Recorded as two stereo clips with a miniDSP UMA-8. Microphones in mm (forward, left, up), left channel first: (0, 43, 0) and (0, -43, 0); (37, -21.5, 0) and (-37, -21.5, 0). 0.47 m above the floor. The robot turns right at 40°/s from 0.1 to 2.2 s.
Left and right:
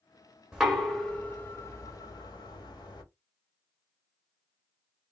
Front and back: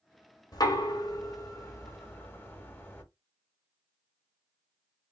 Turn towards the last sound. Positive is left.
turn(degrees=60)